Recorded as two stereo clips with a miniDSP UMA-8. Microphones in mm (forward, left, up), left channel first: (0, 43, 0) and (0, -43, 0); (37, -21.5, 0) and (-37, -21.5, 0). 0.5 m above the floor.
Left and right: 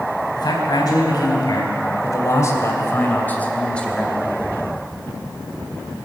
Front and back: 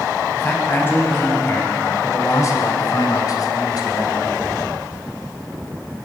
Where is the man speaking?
60° left, 3.5 m; by 4.4 s straight ahead, 2.5 m.